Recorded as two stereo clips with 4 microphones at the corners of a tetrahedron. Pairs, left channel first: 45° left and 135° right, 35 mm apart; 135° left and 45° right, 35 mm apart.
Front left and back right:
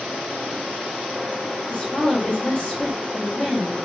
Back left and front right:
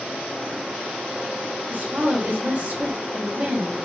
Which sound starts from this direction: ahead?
A woman speaking, at 1.7 s.